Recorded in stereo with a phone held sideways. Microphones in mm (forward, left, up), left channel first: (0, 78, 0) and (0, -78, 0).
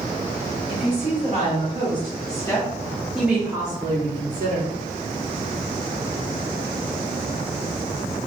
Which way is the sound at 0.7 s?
45° left (ahead or behind).